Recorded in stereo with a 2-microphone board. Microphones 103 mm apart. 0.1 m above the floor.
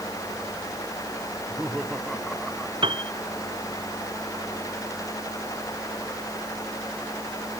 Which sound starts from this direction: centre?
Laughter, at 1.3 s.